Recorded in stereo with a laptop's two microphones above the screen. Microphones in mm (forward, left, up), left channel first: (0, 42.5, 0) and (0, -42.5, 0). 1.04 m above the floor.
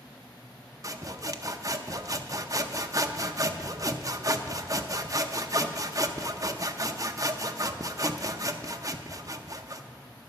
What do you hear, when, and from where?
0.8 s sawing: 40° right (ahead or behind), 0.6 m